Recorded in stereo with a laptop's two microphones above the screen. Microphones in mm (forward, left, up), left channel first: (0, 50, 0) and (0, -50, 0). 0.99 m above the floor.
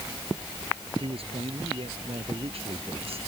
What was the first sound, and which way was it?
A man speaking, 70° right (ahead or behind).